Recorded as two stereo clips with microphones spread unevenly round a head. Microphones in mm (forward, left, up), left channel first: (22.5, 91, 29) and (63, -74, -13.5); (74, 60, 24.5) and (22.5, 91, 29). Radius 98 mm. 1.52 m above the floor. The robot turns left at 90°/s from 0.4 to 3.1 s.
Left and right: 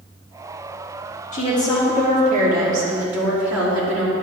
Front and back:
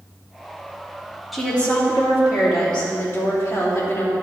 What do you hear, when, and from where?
1.3 s a woman speaking: 65° left, 3 m; by 4.1 s 100° right, 3 m